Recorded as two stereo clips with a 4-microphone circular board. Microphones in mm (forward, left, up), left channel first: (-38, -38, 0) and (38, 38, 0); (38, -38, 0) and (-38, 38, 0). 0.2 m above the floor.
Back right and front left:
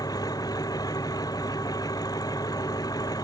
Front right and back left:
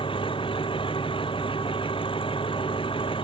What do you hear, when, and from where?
0.0 s an engine running: 80° right